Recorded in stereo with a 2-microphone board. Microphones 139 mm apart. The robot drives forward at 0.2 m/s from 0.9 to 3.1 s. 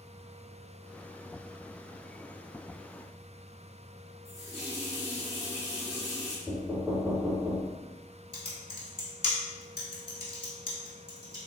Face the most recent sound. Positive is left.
turn(degrees=40)  # may be behind; listen again after turning